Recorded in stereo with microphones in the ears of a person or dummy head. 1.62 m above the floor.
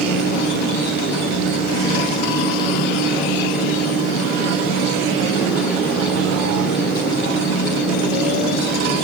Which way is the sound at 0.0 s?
55° left (ahead or behind).